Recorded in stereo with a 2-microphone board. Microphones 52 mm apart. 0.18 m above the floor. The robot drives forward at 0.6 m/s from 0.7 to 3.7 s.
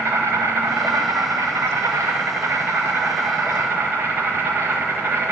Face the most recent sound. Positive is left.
turn(degrees=-50)  # may be behind; listen again after turning